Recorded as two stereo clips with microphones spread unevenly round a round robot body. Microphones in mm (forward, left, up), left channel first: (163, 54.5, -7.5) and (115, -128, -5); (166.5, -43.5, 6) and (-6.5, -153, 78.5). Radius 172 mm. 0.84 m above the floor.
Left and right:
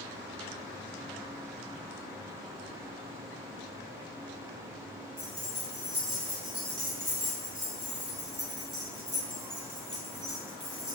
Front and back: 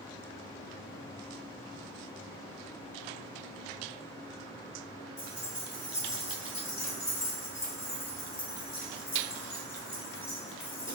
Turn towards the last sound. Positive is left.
turn(degrees=-45)